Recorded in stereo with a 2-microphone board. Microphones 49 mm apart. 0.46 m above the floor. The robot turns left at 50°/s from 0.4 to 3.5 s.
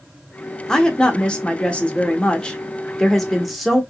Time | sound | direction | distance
0.7 | a woman speaking | 15° left (ahead or behind) | 0.7 m